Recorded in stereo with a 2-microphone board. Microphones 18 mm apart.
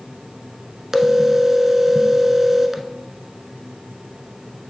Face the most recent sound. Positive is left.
turn(degrees=-20)  # may be behind; listen again after turning